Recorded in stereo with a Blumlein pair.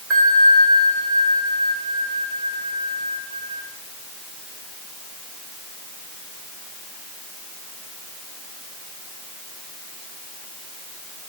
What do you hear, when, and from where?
0.1 s a bell: 25° right, 2.5 m